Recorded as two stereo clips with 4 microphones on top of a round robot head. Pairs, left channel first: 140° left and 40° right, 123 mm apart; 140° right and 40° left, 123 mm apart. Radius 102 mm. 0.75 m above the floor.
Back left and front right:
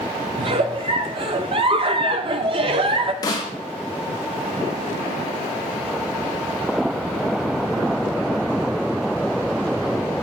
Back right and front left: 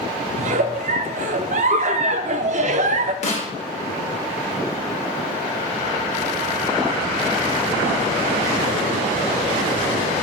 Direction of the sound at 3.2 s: 160° right.